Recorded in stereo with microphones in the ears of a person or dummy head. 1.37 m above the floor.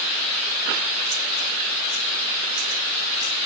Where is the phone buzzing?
I don't hear a phone buzzing.